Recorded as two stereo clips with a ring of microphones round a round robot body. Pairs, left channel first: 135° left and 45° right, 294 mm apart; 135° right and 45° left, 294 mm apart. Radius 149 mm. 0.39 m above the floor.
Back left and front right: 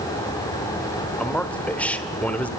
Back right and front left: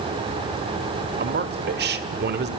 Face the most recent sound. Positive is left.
turn(degrees=55)